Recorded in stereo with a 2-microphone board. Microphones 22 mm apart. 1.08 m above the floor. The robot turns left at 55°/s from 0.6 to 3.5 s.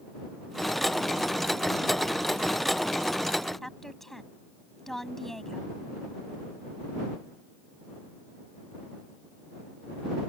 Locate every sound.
3.6 s a woman speaking: 10° left (ahead or behind)